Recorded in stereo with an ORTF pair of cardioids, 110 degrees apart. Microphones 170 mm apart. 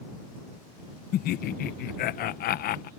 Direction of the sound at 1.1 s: 65° left.